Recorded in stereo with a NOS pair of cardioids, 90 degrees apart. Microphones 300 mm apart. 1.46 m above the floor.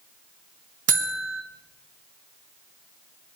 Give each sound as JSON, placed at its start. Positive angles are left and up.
{"t": 0.9, "sound": "a buzzer", "azimuth_deg": -50, "distance_m": 1.4}